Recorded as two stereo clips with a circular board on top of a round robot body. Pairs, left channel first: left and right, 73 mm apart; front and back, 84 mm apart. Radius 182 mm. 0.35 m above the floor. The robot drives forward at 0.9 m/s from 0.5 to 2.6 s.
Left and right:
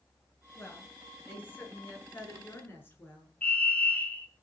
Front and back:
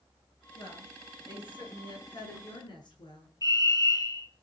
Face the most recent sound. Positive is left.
turn(degrees=30)